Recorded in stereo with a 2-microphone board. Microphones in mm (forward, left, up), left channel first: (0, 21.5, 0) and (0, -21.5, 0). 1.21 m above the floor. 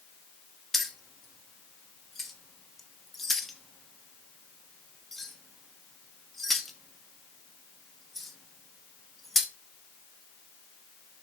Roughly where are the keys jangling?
Centre.